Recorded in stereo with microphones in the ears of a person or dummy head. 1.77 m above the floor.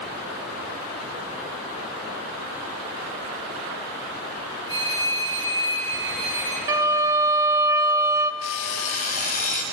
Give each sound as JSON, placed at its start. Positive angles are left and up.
{"t": 4.7, "sound": "a phone ringing", "side_deg": -70, "distance_m": 5.5}
{"t": 6.7, "sound": "a violin", "side_deg": -20, "distance_m": 0.5}
{"t": 8.4, "sound": "an alarm clock", "side_deg": 45, "distance_m": 1.9}